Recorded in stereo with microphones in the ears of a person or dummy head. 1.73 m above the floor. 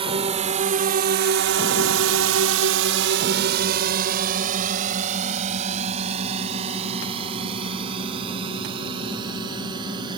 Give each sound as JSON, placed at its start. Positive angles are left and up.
{"t": 0.0, "sound": "a drone", "side_deg": -30}